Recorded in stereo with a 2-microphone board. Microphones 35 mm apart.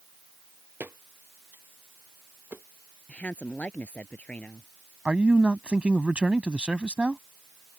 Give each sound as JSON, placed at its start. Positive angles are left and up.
{"t": 0.8, "sound": "footsteps", "side_deg": -80}
{"t": 3.1, "sound": "a woman speaking", "side_deg": 45}
{"t": 5.0, "sound": "a man speaking", "side_deg": -35}